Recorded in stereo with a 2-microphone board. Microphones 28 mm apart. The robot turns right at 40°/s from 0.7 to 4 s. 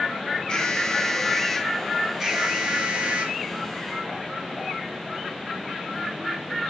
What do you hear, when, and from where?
0.5 s an alarm: 140° left, 2.5 m; by 3.4 s 110° right, 2.5 m